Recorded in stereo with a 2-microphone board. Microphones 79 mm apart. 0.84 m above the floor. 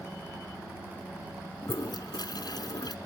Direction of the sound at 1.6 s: 60° left (ahead or behind).